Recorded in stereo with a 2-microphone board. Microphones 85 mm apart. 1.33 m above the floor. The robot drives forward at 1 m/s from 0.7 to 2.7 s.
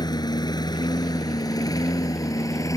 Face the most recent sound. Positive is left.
turn(degrees=40)  # may be behind; listen again after turning